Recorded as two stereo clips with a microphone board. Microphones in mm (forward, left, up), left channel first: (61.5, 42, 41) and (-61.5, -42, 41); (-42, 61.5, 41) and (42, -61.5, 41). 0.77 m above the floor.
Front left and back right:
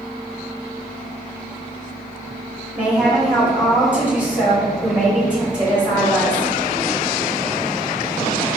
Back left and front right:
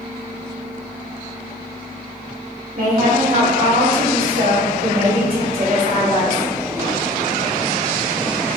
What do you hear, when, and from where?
2.8 s a woman speaking: 65° right, 1.9 m